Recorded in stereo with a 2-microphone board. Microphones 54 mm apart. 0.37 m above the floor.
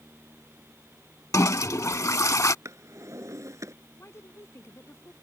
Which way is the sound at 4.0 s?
55° left (ahead or behind).